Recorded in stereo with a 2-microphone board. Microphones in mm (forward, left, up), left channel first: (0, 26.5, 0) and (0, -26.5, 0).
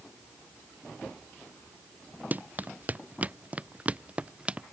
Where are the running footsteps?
35° right (ahead or behind); by 4.6 s 25° right (ahead or behind).